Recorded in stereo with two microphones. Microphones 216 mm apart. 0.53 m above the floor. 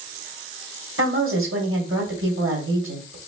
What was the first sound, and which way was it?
A woman speaking, 75° right (ahead or behind).